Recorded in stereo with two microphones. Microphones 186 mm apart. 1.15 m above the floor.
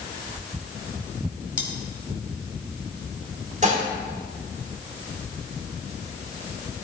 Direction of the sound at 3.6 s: 40° right (ahead or behind).